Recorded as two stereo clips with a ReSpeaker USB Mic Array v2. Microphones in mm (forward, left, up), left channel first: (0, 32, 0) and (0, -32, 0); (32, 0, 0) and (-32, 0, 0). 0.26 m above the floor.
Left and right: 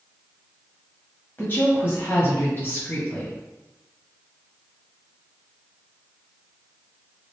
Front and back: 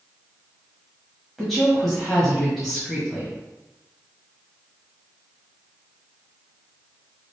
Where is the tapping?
I don't hear tapping.